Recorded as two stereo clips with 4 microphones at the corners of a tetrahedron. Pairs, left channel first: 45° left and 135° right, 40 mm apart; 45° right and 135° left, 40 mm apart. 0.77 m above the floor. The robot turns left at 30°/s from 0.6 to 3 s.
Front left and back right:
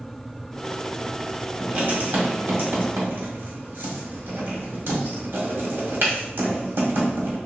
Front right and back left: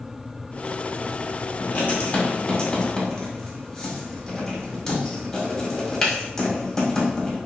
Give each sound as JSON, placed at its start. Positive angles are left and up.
{"t": 1.6, "sound": "writing", "azimuth_deg": -85, "distance_m": 1.7}